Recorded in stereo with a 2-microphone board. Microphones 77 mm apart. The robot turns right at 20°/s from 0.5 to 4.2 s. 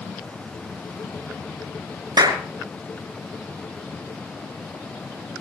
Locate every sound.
2.2 s a clap: 55° right (ahead or behind), 3 m